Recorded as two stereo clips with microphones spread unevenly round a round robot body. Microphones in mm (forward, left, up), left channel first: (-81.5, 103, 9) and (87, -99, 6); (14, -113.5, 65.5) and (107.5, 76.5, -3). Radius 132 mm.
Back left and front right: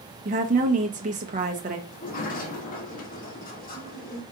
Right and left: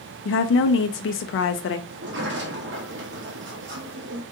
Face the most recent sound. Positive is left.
turn(degrees=70)